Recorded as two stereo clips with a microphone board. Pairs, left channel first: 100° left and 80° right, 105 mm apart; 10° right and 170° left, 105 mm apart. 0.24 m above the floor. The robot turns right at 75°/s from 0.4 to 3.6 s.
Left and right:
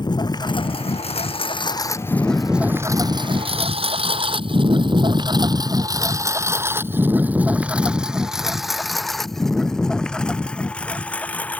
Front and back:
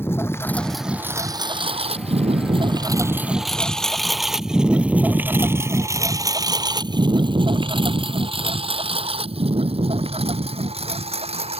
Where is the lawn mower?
55° left; by 11.6 s 175° left.